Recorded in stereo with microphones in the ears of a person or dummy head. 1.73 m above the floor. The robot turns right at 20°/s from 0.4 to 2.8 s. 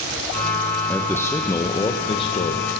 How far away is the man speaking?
About 1.1 m.